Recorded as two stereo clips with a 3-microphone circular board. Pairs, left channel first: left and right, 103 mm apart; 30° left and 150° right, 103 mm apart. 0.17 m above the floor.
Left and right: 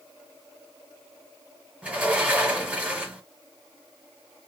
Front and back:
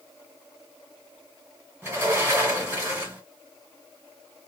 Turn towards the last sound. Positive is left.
turn(degrees=-140)